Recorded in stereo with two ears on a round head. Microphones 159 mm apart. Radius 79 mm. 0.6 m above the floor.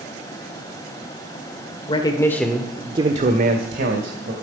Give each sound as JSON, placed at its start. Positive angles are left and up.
{"t": 1.9, "sound": "a man speaking", "side_deg": 30, "distance_m": 1.8}